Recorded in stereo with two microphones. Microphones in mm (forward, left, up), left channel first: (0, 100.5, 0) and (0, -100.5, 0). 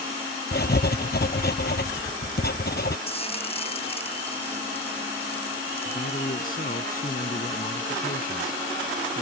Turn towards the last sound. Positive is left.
turn(degrees=45)  # may be behind; listen again after turning